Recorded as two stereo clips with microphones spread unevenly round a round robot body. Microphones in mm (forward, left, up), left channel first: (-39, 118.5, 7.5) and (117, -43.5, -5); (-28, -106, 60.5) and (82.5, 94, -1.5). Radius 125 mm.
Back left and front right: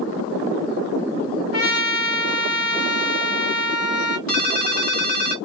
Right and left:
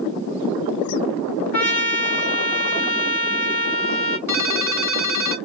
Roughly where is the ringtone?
Behind.